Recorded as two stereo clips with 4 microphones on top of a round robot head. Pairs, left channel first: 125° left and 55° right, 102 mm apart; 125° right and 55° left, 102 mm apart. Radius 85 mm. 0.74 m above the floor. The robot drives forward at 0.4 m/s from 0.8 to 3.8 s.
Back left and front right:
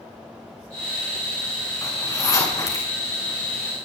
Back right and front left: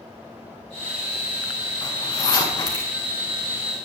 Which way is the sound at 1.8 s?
175° right.